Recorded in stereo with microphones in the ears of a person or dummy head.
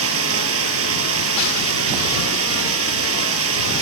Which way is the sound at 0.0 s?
90° right.